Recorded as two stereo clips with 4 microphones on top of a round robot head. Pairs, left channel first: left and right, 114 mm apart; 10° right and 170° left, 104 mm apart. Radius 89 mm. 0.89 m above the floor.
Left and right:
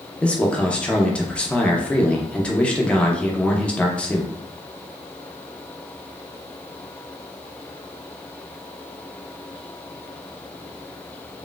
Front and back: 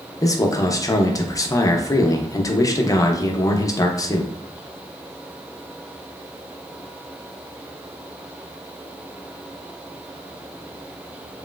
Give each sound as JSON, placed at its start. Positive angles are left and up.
{"t": 0.2, "sound": "a man speaking", "azimuth_deg": 20, "distance_m": 0.6}